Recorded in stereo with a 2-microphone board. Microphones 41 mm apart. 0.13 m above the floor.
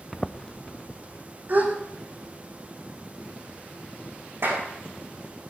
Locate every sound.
0.1 s footsteps: centre (ahead or behind), 0.5 m; by 1.2 s 40° left (ahead or behind), 1.4 m
1.5 s a gasp: 45° right (ahead or behind), 3.5 m
4.4 s a clap: 60° right (ahead or behind), 7 m